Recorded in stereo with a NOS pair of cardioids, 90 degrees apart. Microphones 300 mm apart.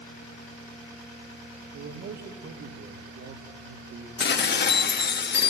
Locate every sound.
1.7 s a man speaking: 70° right, 3 m
4.2 s dishes clattering: 40° left, 1.1 m